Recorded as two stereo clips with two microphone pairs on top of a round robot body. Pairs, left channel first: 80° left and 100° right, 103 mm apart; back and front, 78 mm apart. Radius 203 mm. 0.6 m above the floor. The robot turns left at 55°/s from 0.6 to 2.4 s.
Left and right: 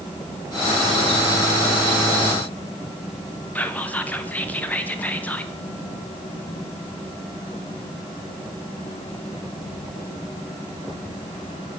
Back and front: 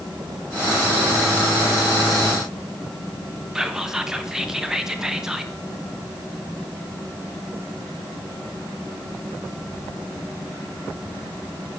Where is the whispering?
60° left, 1.0 m.